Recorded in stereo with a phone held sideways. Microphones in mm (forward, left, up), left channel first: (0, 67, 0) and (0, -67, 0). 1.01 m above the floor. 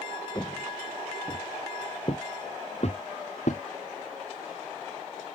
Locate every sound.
0.3 s footsteps: 25° left (ahead or behind); by 3.6 s 65° left (ahead or behind)